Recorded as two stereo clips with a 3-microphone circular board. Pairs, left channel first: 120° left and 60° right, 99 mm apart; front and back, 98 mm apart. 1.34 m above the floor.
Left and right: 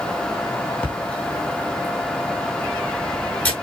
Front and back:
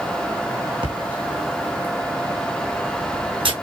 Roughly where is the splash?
Behind.